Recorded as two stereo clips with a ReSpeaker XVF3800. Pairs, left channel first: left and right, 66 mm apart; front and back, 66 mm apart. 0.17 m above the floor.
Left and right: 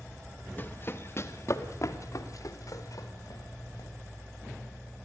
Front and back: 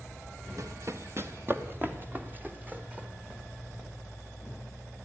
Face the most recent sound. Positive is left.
turn(degrees=110)